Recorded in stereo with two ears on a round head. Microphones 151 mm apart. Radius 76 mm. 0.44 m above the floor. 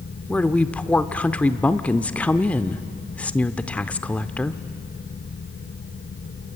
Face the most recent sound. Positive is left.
turn(degrees=10)  # may be behind; listen again after turning